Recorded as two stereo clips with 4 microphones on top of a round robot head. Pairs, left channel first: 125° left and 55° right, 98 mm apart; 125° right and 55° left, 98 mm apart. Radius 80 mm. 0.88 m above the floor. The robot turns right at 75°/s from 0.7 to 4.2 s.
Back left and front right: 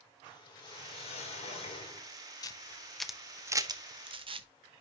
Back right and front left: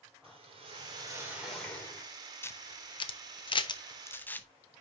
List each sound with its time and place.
0.2 s a whoosh: 85° left, 2.5 m; by 2.1 s 170° right, 2.5 m
2.4 s a camera shutter: 170° left, 0.8 m; by 4.5 s 55° right, 0.8 m